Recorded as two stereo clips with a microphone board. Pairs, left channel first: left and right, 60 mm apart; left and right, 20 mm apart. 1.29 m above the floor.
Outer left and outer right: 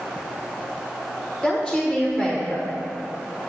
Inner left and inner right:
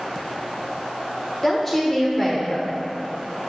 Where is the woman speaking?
10° right (ahead or behind), 1.2 m.